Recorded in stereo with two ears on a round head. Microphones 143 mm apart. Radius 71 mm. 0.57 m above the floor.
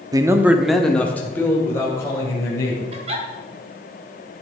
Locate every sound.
0.1 s a man speaking: 25° right (ahead or behind), 0.7 m; by 2.8 s 20° left (ahead or behind), 3 m
2.9 s a giggle: 40° right (ahead or behind), 2.0 m